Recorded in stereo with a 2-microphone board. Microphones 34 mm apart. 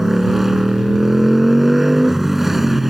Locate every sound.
0.0 s a motorcycle: 5° right (ahead or behind)